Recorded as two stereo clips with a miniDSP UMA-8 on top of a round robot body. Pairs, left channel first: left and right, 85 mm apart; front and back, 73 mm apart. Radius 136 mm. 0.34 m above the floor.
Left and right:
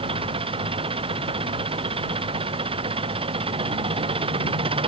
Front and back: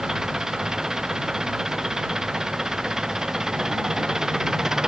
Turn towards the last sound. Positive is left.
turn(degrees=-100)